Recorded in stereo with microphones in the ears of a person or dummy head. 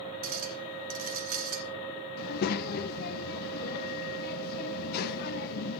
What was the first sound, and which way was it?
A clink, 45° right (ahead or behind).